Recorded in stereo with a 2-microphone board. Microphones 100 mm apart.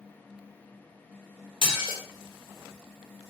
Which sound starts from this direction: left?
Dishes clattering, at 1.6 s.